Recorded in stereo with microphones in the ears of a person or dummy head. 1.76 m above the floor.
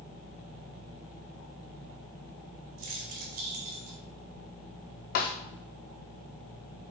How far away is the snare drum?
About 0.7 m.